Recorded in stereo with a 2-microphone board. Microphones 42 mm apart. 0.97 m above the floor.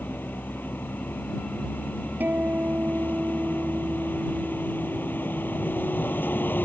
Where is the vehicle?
50° left (ahead or behind).